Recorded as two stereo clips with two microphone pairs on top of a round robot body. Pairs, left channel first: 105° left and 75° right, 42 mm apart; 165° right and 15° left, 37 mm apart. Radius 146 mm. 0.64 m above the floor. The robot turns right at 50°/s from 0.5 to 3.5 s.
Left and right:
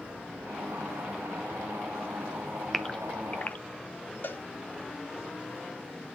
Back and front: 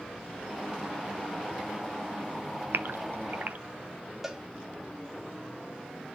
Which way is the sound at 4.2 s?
90° left.